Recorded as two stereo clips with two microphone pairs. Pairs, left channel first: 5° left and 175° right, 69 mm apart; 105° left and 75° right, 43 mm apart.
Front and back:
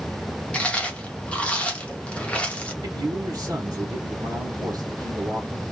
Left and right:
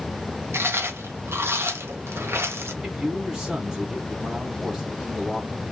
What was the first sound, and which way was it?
Chewing, 65° right.